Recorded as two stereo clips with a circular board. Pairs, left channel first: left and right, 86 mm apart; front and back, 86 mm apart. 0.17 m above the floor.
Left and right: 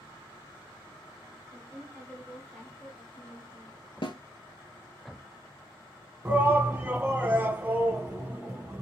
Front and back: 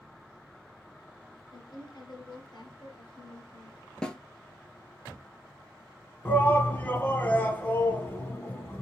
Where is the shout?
45° right, 1.1 m.